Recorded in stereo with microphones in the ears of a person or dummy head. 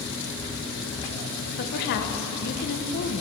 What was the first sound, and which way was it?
A woman speaking, 50° left (ahead or behind).